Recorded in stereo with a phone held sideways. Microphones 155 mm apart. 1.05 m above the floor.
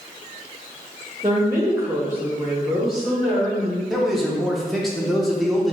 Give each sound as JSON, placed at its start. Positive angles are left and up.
{"t": 1.2, "sound": "a woman speaking", "side_deg": -25, "distance_m": 0.7}
{"t": 3.9, "sound": "a man speaking", "side_deg": 0, "distance_m": 0.7}